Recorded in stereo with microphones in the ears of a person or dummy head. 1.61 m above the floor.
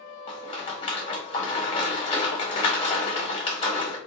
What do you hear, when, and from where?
0.3 s a rattle: 30° left (ahead or behind), 0.8 m